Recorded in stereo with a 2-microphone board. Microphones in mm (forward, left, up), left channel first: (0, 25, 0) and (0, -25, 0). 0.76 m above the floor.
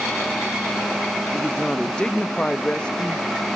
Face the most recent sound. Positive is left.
turn(degrees=20)  # may be behind; listen again after turning